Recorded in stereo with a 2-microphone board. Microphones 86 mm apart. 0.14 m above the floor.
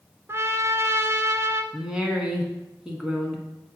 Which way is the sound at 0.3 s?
35° right (ahead or behind).